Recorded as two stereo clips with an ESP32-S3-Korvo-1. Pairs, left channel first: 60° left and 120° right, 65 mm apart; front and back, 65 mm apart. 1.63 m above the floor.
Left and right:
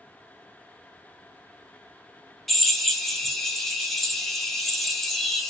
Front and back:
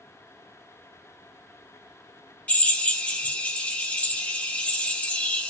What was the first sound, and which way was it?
A drill, 25° right.